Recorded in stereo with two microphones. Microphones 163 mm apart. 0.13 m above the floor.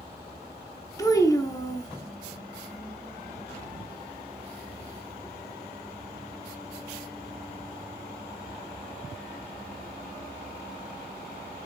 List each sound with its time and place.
1.0 s a child speaking: 20° left (ahead or behind), 0.6 m